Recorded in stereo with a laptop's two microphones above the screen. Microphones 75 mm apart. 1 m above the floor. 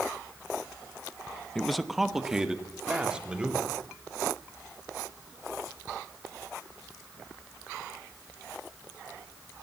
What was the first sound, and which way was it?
A man speaking, 10° left (ahead or behind).